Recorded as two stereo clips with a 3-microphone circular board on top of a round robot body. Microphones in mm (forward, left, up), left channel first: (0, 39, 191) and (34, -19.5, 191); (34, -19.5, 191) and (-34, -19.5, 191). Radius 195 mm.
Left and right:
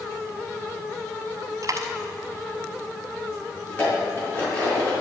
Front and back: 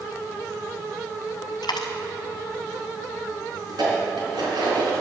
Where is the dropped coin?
20° right, 0.5 m.